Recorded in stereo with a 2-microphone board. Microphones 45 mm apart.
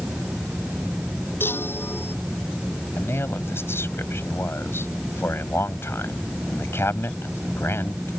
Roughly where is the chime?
Left.